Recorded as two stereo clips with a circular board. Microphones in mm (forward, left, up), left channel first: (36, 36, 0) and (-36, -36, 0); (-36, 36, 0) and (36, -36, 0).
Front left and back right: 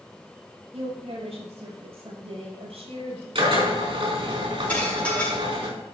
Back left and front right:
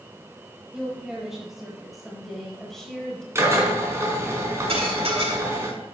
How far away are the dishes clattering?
About 5 m.